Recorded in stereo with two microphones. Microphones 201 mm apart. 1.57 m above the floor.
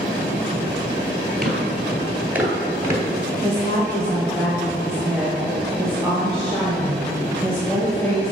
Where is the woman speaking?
5° left (ahead or behind), 1.1 m.